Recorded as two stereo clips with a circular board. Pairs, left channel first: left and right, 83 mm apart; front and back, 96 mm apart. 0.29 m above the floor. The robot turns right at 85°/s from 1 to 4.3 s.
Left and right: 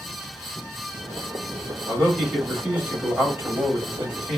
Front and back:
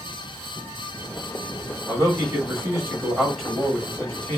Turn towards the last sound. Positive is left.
turn(degrees=-15)